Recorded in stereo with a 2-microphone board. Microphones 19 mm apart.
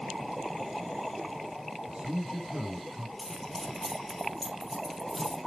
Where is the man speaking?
60° right (ahead or behind), 5 m.